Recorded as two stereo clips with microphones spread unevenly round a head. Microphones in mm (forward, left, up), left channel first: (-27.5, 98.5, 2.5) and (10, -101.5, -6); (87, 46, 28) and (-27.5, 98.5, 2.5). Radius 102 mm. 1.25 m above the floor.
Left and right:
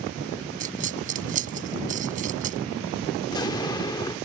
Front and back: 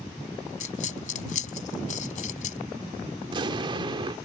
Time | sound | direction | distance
0.6 | a dropped coin | 25° right | ?
3.2 | an explosion | 135° left | ?